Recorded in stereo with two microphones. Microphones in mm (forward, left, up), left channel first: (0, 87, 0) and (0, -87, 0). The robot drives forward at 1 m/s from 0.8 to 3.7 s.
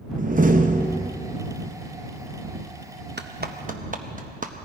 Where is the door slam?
50° right (ahead or behind), 0.8 m; by 1.1 s 65° right (ahead or behind), 0.7 m.